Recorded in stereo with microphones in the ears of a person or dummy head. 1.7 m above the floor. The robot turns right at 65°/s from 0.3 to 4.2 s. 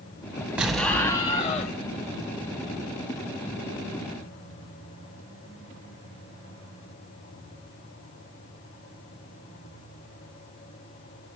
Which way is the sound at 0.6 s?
10° right.